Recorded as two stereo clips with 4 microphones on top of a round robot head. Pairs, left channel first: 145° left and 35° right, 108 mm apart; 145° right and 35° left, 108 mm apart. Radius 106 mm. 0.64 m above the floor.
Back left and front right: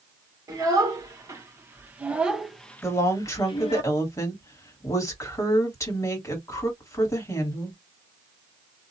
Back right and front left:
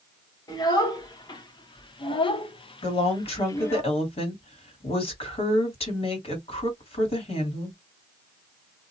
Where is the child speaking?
90° right, 1.8 m; by 3.8 s 155° left, 0.9 m.